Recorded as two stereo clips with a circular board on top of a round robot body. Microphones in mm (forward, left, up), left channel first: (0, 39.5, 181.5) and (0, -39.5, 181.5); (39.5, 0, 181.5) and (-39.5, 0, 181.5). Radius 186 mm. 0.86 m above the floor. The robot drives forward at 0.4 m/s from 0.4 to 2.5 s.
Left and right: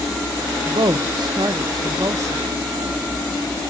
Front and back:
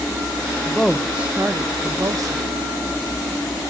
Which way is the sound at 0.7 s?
80° right.